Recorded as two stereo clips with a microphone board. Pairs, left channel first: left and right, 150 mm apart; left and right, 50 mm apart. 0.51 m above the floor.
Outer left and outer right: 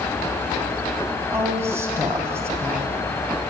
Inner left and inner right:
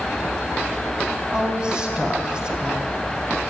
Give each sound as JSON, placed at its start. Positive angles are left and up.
{"t": 1.3, "sound": "a woman speaking", "side_deg": -15, "distance_m": 3.5}